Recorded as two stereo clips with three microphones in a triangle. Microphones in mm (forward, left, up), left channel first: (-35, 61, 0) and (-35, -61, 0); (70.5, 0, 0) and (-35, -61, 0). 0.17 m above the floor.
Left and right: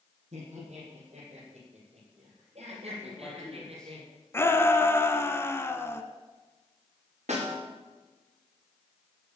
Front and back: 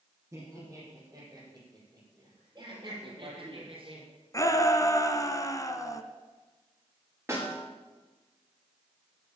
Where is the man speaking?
170° left, 4.5 m.